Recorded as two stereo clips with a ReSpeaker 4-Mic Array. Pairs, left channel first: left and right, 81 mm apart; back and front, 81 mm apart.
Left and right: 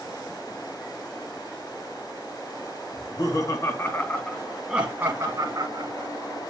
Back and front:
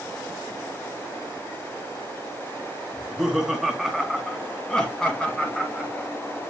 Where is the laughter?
85° left, 2.5 m; by 6.1 s 105° right, 2.5 m.